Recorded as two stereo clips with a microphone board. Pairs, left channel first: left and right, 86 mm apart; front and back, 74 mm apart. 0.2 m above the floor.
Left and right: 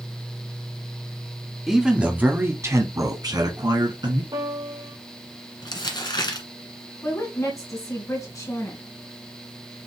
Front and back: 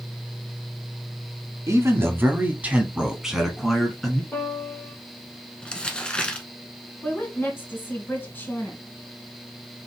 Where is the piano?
60° right, 3 m.